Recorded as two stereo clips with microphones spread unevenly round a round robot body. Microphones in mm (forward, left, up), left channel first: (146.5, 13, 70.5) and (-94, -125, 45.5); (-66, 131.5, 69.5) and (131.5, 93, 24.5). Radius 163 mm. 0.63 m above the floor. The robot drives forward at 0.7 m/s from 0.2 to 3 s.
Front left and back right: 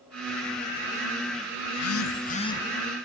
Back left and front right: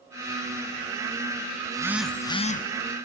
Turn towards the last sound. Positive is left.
turn(degrees=135)